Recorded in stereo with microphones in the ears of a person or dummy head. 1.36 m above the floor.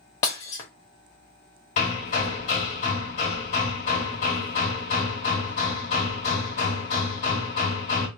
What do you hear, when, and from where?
0.2 s breaking glass: 15° left (ahead or behind), 0.8 m
1.8 s hammering: 35° left (ahead or behind), 1.3 m